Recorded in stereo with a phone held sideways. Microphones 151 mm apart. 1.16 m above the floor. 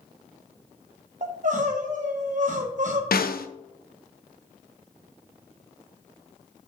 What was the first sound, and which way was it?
Crying, 55° right (ahead or behind).